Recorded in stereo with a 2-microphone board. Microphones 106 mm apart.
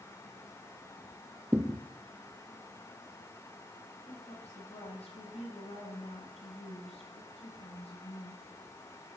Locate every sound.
1.5 s a thud: 20° right (ahead or behind), 1.5 m
4.1 s a woman speaking: 80° left, 9.5 m